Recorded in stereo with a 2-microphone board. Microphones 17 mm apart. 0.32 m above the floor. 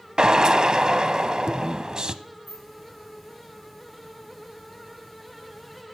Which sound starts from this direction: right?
A drill, at 0.2 s.